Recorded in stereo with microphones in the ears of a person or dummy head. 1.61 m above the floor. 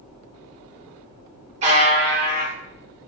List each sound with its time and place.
1.6 s a buzzer: 40° right (ahead or behind), 1.0 m